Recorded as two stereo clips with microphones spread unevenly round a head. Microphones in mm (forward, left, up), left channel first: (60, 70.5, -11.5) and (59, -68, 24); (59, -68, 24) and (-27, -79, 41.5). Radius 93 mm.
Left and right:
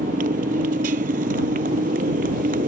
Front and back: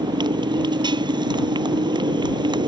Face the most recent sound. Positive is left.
turn(degrees=-140)